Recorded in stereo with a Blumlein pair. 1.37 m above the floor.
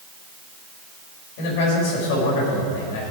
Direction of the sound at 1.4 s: 50° left.